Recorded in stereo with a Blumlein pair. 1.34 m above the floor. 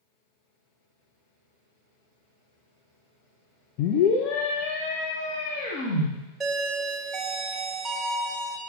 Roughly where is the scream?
Ahead left.